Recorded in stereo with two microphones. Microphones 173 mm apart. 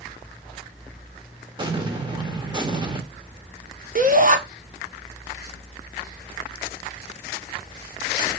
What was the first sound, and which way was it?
An explosion, 25° right (ahead or behind).